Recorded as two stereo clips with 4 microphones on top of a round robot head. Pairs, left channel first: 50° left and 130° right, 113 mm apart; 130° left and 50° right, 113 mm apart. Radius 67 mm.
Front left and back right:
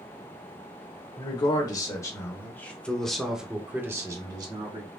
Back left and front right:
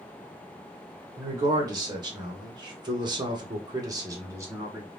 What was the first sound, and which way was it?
A man speaking, 5° left.